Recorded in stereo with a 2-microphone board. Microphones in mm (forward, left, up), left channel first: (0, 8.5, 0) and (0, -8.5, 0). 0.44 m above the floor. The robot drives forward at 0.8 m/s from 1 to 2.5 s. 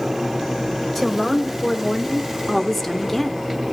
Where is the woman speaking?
10° left (ahead or behind), 1.8 m; by 3.5 s 20° left (ahead or behind), 1.0 m.